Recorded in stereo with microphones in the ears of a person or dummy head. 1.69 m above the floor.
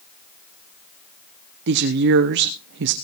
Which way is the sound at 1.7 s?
65° right (ahead or behind).